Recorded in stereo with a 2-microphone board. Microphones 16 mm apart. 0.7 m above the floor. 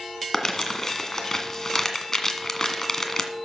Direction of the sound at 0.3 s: 30° left (ahead or behind).